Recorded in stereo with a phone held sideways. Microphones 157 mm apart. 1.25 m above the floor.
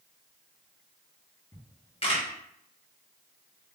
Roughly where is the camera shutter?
Left.